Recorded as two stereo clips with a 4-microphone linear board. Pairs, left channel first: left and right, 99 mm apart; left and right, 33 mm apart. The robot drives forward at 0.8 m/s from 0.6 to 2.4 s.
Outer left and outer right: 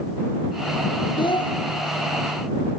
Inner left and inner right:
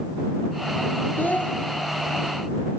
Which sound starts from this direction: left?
A child speaking, at 1.2 s.